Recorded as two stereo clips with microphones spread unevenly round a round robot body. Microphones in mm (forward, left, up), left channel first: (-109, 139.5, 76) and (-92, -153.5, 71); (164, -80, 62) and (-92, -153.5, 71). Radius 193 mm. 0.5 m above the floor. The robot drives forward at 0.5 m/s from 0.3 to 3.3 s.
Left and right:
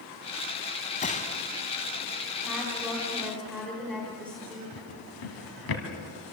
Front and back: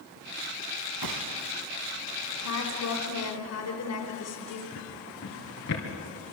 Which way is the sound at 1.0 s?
160° left.